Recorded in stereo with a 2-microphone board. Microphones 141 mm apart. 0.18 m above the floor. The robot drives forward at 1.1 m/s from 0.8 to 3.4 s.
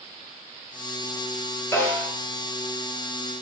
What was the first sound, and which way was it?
A snare drum, 20° left (ahead or behind).